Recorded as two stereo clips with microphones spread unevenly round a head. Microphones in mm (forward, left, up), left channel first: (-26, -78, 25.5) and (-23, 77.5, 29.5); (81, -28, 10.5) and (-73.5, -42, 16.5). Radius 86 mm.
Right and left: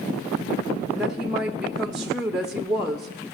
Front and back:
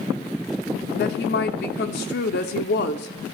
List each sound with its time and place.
0.9 s a woman speaking: straight ahead, 0.6 m